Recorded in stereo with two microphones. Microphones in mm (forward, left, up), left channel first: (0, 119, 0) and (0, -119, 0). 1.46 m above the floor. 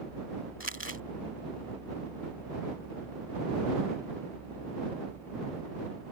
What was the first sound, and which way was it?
Crumpling, 60° left (ahead or behind).